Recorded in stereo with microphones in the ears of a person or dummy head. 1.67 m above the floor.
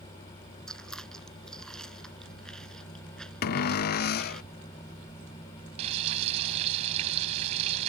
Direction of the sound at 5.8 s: 40° right (ahead or behind).